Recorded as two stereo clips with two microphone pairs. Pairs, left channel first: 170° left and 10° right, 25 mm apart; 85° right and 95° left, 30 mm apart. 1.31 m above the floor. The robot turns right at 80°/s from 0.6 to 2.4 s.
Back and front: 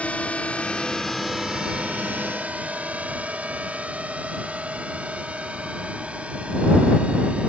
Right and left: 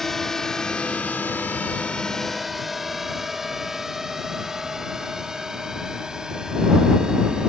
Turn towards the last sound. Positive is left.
turn(degrees=30)